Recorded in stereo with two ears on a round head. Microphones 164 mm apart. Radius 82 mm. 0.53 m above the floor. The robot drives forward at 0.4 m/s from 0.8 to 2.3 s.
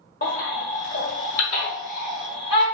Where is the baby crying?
45° left (ahead or behind), 0.9 m; by 2.6 s 30° left (ahead or behind), 1.3 m.